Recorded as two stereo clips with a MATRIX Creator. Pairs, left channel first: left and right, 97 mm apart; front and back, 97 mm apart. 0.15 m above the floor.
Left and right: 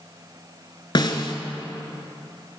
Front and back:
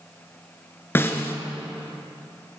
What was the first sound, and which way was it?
A snare drum, 65° left.